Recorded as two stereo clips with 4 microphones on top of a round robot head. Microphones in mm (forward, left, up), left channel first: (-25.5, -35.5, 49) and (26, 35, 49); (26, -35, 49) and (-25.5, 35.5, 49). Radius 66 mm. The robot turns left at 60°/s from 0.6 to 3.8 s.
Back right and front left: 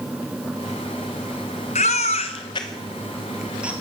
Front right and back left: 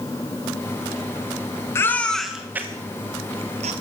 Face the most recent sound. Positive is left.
turn(degrees=120)